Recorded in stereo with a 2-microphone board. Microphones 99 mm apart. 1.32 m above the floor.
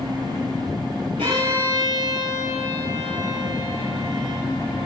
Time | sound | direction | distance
1.2 | a violin | 80° right | 10 m